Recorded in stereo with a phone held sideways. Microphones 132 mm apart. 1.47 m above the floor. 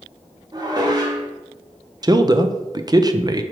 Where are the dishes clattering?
30° right (ahead or behind), 1.2 m.